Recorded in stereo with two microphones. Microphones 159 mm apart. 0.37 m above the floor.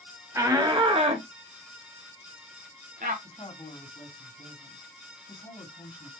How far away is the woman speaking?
About 2.5 m.